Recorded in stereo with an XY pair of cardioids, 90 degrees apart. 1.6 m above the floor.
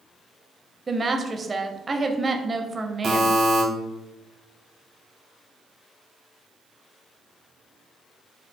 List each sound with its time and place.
0.9 s a woman speaking: 30° right, 0.7 m
3.0 s a buzzer: 65° right, 1.3 m